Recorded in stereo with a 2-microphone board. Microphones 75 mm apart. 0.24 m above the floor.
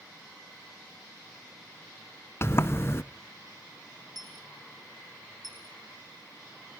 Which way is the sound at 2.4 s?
35° left (ahead or behind).